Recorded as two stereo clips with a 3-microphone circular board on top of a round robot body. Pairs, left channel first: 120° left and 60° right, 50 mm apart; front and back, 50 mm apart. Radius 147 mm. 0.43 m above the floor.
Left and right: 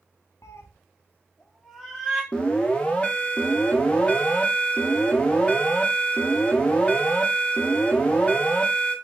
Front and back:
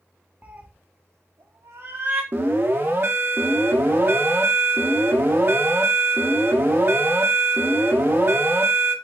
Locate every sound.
0.4 s a cat meowing: 115° left, 0.6 m; by 2.2 s 140° right, 0.9 m
2.3 s an alarm: straight behind, 0.8 m